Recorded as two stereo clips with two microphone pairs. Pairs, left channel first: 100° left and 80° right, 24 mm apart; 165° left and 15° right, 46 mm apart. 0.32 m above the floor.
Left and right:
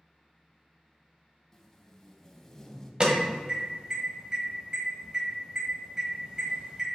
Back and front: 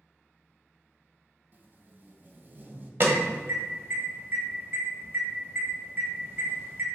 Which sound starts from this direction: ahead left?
Tape being pulled, at 1.5 s.